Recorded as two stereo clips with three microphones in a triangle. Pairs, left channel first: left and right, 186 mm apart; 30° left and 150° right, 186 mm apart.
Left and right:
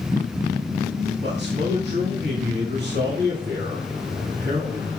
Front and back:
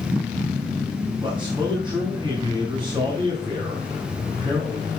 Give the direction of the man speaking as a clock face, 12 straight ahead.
3 o'clock.